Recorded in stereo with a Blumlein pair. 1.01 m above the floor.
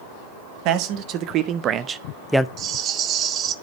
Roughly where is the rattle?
Ahead right.